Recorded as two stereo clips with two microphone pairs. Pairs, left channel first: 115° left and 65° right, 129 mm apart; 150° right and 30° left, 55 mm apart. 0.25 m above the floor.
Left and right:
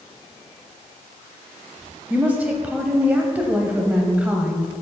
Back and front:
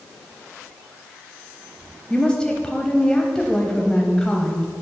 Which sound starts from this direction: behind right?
A woman speaking, at 2.1 s.